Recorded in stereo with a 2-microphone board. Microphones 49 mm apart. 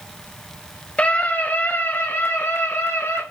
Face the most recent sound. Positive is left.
turn(degrees=60)  # may be behind; listen again after turning